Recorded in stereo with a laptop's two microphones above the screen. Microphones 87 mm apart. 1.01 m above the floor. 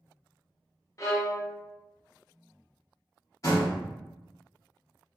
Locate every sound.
1.0 s a violin: 40° left (ahead or behind), 0.6 m
3.4 s a door slam: 40° left (ahead or behind), 1.1 m